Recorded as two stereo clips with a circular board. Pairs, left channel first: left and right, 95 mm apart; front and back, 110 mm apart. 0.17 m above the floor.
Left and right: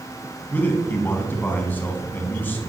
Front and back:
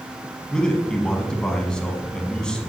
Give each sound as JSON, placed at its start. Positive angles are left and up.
{"t": 0.5, "sound": "a man speaking", "azimuth_deg": 70, "distance_m": 1.0}